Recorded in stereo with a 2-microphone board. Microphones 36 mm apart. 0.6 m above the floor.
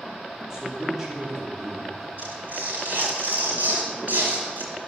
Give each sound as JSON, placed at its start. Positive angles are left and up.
{"t": 0.5, "sound": "a man speaking", "side_deg": -15, "distance_m": 2.0}
{"t": 2.2, "sound": "tearing paper", "side_deg": -55, "distance_m": 4.5}